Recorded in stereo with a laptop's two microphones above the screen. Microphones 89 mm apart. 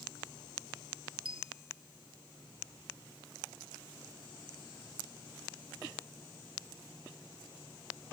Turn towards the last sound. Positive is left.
turn(degrees=-90)